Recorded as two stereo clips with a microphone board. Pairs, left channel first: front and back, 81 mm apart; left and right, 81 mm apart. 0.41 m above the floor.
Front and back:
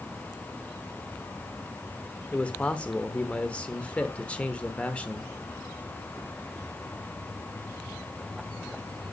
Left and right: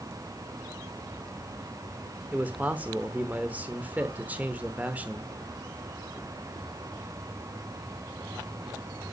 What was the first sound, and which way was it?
A man speaking, 50° right.